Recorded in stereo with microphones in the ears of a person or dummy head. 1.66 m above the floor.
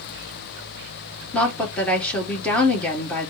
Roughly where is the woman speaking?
Centre.